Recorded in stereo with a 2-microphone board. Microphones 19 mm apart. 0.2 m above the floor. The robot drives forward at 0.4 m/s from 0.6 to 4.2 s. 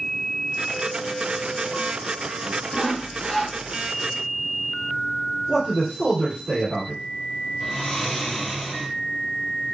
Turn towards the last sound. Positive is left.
turn(degrees=20)  # may be behind; listen again after turning